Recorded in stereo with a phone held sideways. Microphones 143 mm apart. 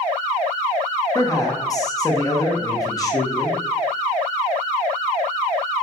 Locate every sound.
1.1 s a man speaking: 25° left (ahead or behind), 0.7 m